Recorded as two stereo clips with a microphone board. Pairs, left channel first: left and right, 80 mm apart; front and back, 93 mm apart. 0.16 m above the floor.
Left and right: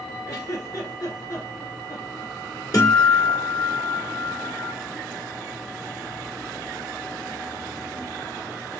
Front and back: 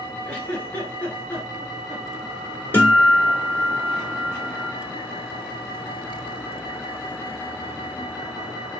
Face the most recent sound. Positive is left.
turn(degrees=65)